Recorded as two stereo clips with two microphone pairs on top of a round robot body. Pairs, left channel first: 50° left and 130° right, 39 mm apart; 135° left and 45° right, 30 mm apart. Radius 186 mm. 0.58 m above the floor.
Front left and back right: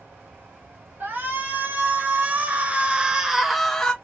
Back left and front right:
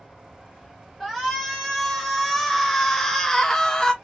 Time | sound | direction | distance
1.0 | a shout | 135° right | 1.9 m